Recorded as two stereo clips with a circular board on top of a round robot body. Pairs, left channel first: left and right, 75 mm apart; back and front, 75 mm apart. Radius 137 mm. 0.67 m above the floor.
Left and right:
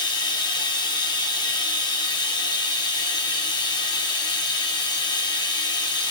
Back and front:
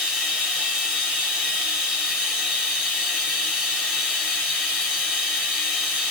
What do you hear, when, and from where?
0.0 s running water: 80° left, 1.8 m